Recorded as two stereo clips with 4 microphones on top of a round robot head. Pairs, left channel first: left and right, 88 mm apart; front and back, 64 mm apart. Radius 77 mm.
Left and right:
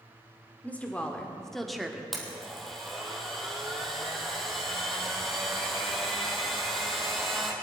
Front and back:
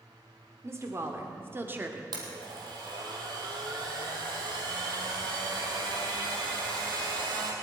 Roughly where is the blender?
Behind.